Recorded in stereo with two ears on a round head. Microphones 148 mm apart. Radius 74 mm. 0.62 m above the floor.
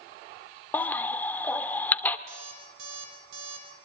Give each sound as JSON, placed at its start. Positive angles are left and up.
{"t": 0.7, "sound": "a baby crying", "side_deg": 10, "distance_m": 1.5}
{"t": 2.3, "sound": "an alarm clock", "side_deg": -90, "distance_m": 7.0}